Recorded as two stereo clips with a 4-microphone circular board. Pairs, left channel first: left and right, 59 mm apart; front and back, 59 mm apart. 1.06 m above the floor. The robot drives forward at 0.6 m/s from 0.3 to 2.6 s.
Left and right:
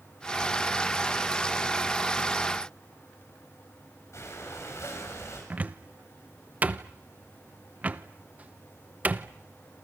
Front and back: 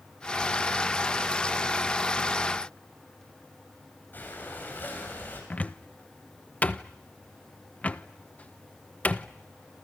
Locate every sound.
4.1 s breathing: 55° left, 7.5 m
5.5 s a cupboard door: 50° right, 0.9 m